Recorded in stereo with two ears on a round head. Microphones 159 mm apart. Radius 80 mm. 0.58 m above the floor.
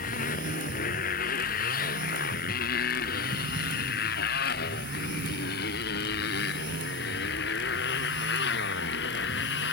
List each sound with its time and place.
0.0 s a motorcycle: 50° left (ahead or behind); by 9.8 s 65° left (ahead or behind)